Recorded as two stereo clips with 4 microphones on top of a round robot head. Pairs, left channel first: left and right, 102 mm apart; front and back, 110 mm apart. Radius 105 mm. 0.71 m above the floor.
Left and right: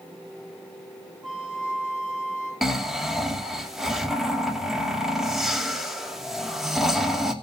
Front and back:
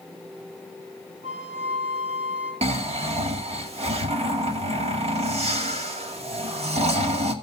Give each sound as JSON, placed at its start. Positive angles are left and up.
{"t": 1.2, "sound": "a flute", "azimuth_deg": -175, "distance_m": 9.5}
{"t": 2.6, "sound": "snoring", "azimuth_deg": -175, "distance_m": 2.5}